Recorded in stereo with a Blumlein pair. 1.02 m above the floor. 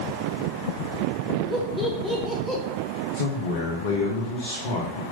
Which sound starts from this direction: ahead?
Laughter, at 1.5 s.